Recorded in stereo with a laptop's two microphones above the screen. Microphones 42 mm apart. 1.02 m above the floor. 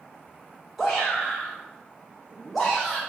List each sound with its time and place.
0.8 s a shout: 5° left (ahead or behind), 0.6 m